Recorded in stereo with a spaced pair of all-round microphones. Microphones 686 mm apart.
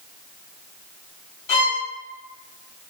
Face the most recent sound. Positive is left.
turn(degrees=50)  # may be behind; listen again after turning